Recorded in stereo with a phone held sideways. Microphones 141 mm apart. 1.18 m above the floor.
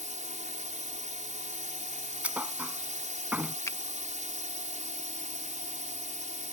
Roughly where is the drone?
Right.